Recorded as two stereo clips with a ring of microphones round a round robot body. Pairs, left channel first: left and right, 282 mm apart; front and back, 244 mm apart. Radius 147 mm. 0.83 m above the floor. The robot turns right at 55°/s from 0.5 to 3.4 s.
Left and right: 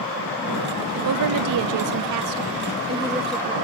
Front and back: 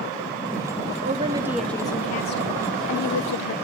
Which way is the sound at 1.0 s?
120° right.